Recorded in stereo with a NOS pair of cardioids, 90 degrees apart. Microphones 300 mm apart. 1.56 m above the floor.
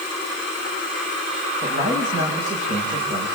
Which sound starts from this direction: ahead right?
A man speaking, at 1.6 s.